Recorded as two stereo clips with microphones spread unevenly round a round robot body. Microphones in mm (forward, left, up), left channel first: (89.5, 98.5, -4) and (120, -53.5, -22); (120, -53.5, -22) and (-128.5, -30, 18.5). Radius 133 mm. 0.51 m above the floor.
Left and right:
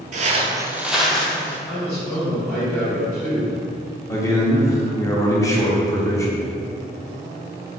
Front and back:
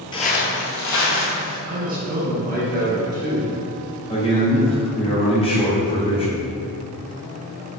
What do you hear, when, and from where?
0.1 s footsteps: 80° right, 0.6 m; by 1.6 s 20° left, 1.7 m
1.7 s a man speaking: 170° right, 1.0 m
4.1 s a man speaking: 35° left, 0.9 m